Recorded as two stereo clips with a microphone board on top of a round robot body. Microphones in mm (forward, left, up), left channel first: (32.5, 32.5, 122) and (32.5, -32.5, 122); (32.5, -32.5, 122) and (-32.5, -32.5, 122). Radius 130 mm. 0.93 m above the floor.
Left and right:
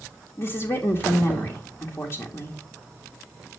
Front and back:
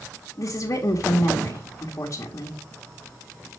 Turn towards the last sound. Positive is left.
turn(degrees=45)